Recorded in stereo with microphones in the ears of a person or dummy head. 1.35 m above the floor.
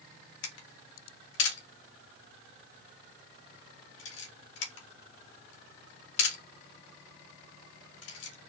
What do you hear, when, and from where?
0.4 s a camera shutter: 75° left (ahead or behind), 1.4 m